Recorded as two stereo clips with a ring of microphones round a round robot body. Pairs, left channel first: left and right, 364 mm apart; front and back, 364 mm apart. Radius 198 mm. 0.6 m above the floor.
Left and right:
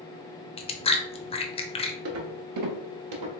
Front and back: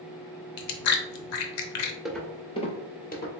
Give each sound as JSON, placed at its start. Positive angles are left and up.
{"t": 0.6, "sound": "chewing", "azimuth_deg": 15, "distance_m": 0.6}
{"t": 2.0, "sound": "footsteps", "azimuth_deg": -95, "distance_m": 0.6}